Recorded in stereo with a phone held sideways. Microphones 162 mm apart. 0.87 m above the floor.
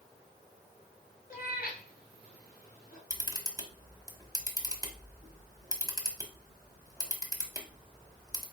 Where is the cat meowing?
60° left (ahead or behind), 1.5 m; by 3.0 s 70° left (ahead or behind), 2.5 m.